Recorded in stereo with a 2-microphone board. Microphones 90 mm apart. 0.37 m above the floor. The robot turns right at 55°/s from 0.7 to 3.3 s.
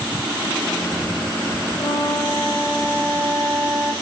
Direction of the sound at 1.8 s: 145° left.